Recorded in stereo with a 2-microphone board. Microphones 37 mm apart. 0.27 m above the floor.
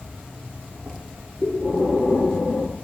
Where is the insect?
75° right (ahead or behind), 0.7 m.